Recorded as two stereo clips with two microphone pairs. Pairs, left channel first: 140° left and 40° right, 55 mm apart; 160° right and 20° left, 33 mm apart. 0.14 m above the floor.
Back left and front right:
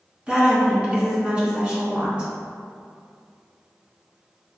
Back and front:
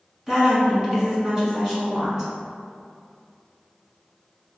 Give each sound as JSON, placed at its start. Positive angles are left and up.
{"t": 0.3, "sound": "a woman speaking", "azimuth_deg": 0, "distance_m": 1.1}